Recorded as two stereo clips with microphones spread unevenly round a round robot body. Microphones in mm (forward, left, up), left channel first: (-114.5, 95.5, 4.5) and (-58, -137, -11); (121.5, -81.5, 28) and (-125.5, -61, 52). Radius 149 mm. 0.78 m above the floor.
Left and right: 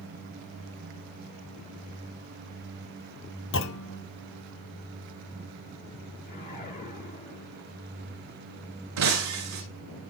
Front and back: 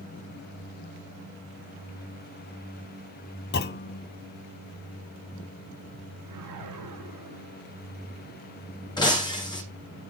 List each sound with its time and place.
3.5 s a clunk: 55° left, 0.7 m
6.2 s a whoosh: 155° left, 8 m
9.0 s breaking glass: 80° right, 7.5 m